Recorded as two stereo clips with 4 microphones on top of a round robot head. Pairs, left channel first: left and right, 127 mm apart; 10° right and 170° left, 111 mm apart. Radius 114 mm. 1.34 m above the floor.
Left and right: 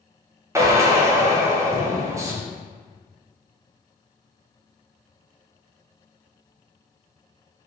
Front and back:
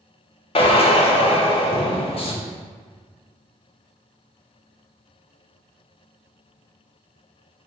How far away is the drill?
About 0.5 m.